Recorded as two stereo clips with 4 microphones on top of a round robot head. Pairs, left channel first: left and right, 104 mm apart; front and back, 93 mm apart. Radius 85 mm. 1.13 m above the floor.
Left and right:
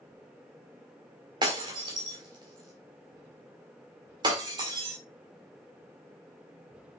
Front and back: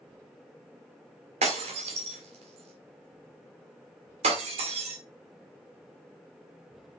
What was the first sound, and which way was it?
Breaking glass, 150° right.